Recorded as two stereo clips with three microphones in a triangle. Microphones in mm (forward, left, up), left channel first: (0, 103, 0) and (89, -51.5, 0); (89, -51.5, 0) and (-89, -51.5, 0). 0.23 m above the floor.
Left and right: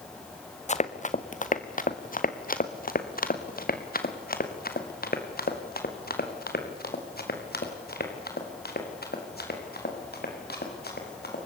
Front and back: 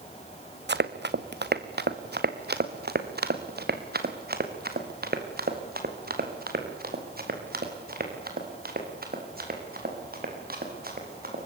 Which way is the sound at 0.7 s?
170° left.